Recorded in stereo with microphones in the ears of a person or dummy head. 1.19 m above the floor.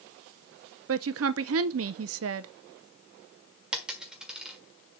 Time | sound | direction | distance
0.9 | a woman speaking | 65° right (ahead or behind) | 0.6 m
3.7 | a dropped coin | centre (ahead or behind) | 1.5 m